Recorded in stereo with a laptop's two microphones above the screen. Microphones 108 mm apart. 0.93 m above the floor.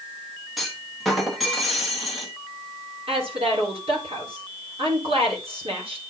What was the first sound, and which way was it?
A clunk, centre (ahead or behind).